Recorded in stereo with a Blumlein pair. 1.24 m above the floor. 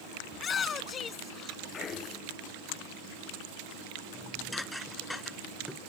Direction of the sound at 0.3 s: 20° left.